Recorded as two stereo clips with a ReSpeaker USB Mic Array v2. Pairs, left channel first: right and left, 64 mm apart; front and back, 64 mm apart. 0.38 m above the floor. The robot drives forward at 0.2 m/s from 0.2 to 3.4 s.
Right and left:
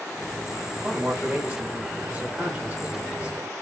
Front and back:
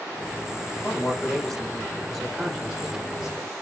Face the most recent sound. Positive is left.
turn(degrees=115)